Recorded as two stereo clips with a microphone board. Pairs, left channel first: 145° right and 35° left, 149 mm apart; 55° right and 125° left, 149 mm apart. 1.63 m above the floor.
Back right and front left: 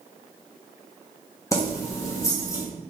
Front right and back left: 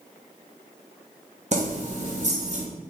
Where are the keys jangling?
150° left, 0.9 m.